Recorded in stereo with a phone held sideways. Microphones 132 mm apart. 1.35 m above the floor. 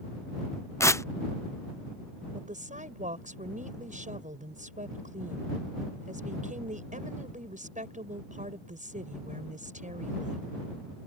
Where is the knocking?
No knocking in this recording.